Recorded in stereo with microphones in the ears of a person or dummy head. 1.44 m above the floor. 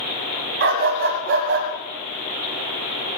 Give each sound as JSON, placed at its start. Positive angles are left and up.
{"t": 0.6, "sound": "a dog barking", "side_deg": -60, "distance_m": 2.0}